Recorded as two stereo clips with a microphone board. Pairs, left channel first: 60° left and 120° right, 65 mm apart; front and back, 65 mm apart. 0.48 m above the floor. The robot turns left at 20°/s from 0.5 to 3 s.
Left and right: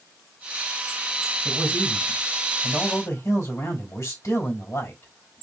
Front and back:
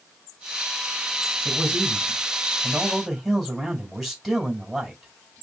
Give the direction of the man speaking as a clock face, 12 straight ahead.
8 o'clock.